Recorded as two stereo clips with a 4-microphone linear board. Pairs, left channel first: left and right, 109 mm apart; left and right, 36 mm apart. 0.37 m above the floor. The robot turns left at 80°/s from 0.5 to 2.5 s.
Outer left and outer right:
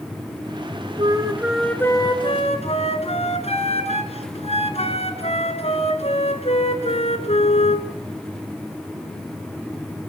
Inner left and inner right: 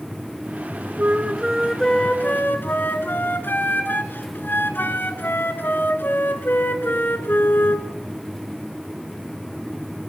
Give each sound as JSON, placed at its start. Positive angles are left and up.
{"t": 1.0, "sound": "a flute", "azimuth_deg": -130, "distance_m": 2.5}